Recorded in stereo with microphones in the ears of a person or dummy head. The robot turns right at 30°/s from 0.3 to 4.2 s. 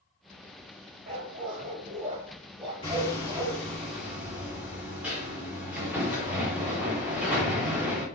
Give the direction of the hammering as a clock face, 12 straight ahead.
7 o'clock.